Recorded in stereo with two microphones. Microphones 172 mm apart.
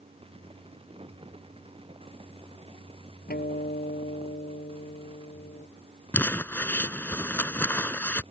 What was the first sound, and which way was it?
A guitar, 60° left (ahead or behind).